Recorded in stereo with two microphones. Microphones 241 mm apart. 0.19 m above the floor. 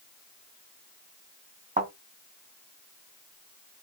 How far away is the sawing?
No sawing in this recording.